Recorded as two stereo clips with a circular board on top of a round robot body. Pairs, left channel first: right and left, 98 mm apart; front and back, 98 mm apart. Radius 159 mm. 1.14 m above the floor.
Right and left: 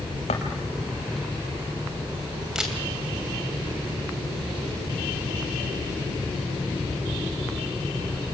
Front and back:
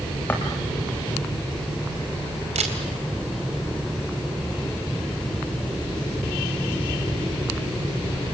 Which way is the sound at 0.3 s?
75° right.